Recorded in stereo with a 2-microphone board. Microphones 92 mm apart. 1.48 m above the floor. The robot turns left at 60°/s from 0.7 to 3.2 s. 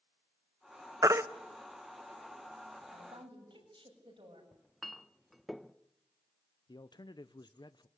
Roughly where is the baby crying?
Right.